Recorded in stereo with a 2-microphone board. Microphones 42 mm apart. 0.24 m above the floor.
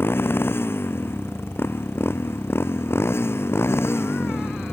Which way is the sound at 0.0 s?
65° left (ahead or behind).